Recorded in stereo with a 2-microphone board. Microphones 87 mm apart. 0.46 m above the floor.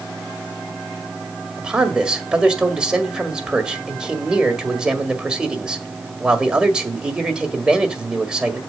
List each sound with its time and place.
1.6 s a man speaking: 10° right (ahead or behind), 1.6 m